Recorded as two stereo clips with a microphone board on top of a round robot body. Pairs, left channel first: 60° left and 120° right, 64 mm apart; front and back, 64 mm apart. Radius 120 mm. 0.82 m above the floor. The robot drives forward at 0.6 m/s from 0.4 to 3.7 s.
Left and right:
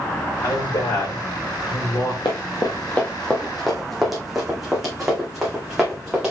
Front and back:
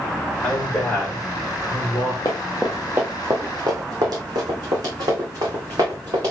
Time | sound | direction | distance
0.4 | a man speaking | 70° left | 3.5 m
2.2 | running footsteps | 40° left | 1.0 m